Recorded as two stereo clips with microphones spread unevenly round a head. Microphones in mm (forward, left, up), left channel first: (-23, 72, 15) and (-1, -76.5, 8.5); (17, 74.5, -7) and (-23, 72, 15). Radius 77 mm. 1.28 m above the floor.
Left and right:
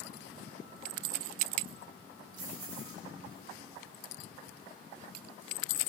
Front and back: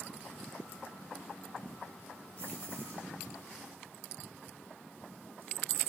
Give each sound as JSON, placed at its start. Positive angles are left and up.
{"t": 2.4, "sound": "keys jangling", "azimuth_deg": -70, "distance_m": 10.0}